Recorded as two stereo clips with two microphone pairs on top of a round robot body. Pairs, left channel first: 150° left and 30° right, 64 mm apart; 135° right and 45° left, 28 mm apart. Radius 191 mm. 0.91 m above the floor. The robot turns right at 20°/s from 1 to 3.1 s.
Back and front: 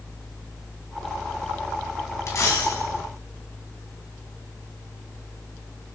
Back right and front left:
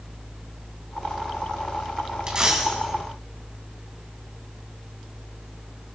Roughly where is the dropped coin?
Left.